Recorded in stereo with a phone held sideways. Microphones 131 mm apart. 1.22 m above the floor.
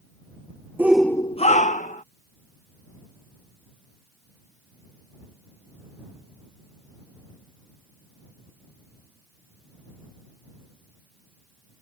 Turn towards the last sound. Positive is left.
turn(degrees=75)  # may be behind; listen again after turning